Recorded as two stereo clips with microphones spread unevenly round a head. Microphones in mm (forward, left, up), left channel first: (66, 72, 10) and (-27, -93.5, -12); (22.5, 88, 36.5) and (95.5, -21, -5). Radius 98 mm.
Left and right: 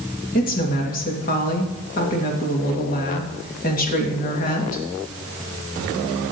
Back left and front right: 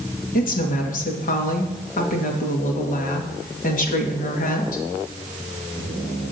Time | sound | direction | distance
0.3 | a woman speaking | 110° left | 2 m